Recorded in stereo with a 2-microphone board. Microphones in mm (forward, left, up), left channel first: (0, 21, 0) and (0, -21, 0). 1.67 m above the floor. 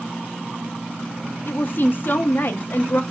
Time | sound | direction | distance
1.5 | a woman speaking | 45° left (ahead or behind) | 0.5 m